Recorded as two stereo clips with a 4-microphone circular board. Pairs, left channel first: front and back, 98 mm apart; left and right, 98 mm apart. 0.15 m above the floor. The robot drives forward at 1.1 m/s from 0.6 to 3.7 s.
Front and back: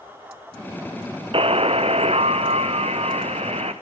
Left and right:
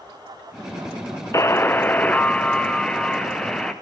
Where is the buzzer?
150° left, 0.8 m; by 3.7 s 175° left, 3.5 m.